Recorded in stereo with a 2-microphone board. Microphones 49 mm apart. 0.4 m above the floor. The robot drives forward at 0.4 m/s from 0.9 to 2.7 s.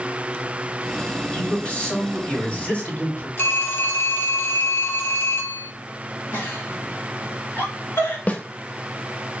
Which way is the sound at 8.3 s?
35° left (ahead or behind).